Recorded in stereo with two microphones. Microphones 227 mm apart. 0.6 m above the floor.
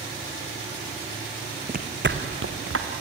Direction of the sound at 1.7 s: 35° right (ahead or behind).